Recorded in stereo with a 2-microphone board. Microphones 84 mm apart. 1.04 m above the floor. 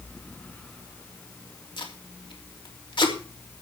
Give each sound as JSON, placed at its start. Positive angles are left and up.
{"t": 1.8, "sound": "tape being pulled", "side_deg": 70, "distance_m": 3.0}